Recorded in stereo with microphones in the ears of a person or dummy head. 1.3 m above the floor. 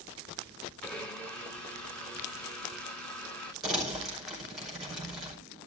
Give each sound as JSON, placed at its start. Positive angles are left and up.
{"t": 0.8, "sound": "a blender", "side_deg": 5, "distance_m": 2.5}
{"t": 3.6, "sound": "crumpling", "side_deg": -5, "distance_m": 5.5}